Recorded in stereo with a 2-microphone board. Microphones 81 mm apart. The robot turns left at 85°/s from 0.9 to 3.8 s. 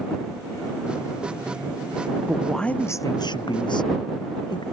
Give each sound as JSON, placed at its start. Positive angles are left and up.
{"t": 2.3, "sound": "a man speaking", "azimuth_deg": -165}